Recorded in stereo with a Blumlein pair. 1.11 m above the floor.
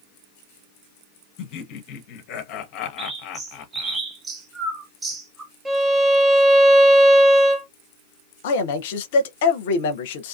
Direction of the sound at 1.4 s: 40° left.